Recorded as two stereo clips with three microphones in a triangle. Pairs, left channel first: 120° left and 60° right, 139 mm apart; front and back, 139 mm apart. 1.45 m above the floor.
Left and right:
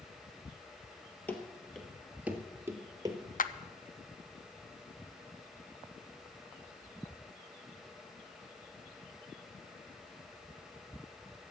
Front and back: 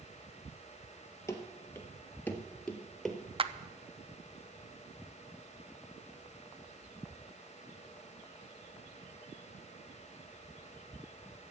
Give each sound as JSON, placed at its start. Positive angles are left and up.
{"t": 1.3, "sound": "running footsteps", "azimuth_deg": 50, "distance_m": 1.7}
{"t": 3.4, "sound": "a clap", "azimuth_deg": 130, "distance_m": 0.6}